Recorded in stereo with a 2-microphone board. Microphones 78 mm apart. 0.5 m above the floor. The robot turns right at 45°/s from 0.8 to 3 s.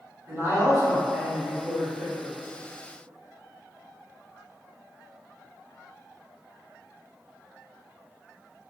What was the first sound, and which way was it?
A man speaking, 70° right.